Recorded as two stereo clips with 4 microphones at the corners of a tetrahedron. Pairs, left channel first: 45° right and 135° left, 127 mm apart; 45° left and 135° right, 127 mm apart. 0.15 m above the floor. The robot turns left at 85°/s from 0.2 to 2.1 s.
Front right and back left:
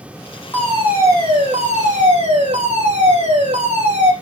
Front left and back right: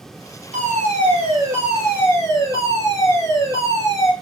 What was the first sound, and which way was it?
A fire alarm, 115° right.